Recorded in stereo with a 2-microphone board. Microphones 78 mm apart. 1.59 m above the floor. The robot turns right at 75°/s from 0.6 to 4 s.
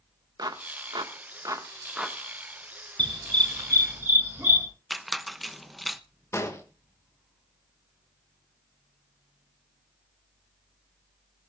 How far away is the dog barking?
About 6 m.